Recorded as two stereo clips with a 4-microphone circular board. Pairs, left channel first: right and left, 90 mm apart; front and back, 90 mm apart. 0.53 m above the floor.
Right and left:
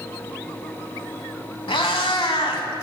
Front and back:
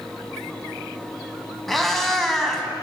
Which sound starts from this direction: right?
A cat meowing, at 1.7 s.